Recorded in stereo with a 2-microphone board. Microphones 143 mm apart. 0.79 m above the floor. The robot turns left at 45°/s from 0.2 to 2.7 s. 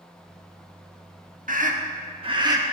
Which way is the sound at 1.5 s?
65° right (ahead or behind).